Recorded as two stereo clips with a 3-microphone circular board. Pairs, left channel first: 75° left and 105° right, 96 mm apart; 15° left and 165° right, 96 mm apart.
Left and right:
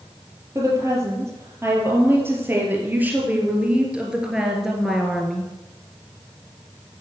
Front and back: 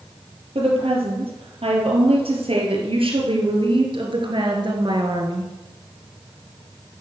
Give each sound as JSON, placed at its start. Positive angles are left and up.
{"t": 0.6, "sound": "a woman speaking", "azimuth_deg": -160, "distance_m": 4.5}